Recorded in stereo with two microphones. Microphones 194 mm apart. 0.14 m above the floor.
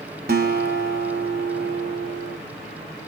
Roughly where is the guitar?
Right.